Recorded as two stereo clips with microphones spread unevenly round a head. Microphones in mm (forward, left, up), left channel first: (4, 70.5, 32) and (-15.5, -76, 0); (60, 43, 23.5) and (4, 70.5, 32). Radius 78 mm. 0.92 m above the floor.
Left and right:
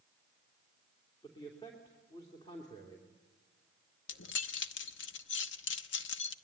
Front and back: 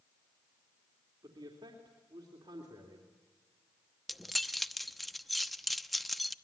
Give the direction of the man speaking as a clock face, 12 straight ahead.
7 o'clock.